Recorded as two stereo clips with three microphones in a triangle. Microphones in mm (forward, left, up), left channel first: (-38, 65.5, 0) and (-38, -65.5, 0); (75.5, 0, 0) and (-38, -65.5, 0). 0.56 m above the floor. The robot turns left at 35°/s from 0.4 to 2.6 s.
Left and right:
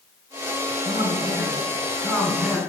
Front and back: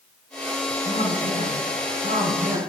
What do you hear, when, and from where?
0.8 s a man speaking: 125° right, 5 m; by 2.6 s 175° left, 5 m